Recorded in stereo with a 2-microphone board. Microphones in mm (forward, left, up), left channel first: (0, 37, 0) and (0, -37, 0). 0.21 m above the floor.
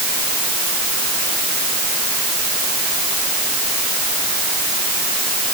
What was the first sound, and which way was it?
Only background noise.